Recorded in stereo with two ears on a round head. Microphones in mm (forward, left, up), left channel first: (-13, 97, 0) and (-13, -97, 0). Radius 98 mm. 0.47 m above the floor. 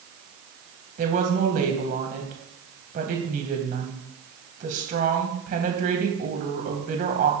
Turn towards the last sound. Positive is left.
turn(degrees=-40)  # may be behind; listen again after turning